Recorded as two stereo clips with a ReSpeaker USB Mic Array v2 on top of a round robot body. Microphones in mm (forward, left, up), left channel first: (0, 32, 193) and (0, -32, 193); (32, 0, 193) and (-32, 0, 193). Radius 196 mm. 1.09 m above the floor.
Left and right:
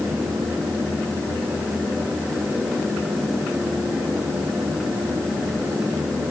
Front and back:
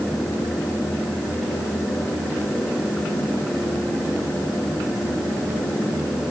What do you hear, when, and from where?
Only background noise.